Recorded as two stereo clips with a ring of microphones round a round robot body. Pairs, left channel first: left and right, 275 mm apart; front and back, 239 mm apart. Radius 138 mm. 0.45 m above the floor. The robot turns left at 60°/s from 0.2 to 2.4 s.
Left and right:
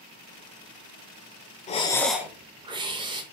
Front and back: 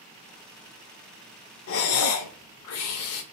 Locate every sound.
1.7 s breathing: 25° left, 0.6 m; by 3.2 s 15° right, 0.6 m